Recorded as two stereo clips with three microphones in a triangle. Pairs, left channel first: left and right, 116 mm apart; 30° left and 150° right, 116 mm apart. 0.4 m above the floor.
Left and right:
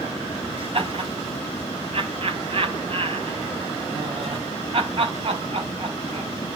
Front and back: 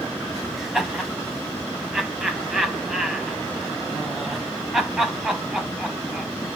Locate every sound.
0.6 s laughter: 65° right, 3 m